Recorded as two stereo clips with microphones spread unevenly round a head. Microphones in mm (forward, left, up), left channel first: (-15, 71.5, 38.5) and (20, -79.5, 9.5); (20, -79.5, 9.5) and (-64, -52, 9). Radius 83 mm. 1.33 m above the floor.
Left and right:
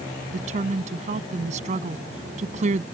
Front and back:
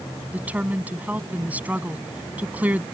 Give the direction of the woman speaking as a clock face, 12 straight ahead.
4 o'clock.